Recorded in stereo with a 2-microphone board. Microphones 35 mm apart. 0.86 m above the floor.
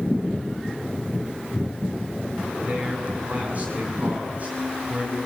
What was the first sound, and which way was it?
A man speaking, 40° right (ahead or behind).